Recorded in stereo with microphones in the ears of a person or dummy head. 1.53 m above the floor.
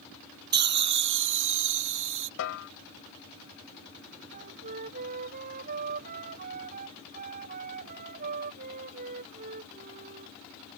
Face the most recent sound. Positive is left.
turn(degrees=-45)  # may be behind; listen again after turning